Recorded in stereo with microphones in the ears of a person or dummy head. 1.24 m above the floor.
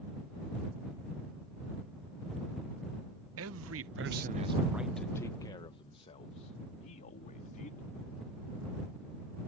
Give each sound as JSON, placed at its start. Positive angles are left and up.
{"t": 3.4, "sound": "a man speaking", "side_deg": -70}